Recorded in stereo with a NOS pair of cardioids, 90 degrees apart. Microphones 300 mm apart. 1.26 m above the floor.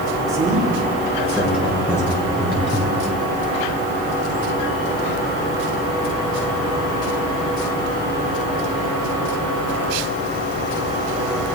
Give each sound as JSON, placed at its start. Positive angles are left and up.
{"t": 0.3, "sound": "a man speaking", "azimuth_deg": -10, "distance_m": 3.0}